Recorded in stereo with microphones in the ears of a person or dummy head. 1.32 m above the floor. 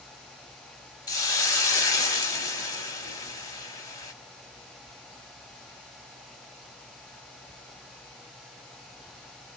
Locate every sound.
1.1 s a hiss: 15° left (ahead or behind), 0.6 m